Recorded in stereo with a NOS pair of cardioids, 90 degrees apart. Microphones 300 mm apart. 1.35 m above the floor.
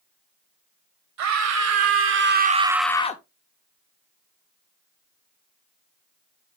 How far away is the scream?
About 2.5 m.